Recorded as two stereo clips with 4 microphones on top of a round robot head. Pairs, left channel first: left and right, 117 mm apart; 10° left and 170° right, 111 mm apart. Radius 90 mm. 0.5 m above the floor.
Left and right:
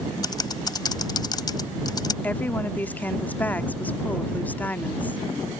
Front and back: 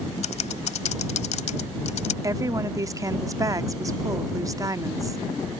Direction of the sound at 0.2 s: 35° left.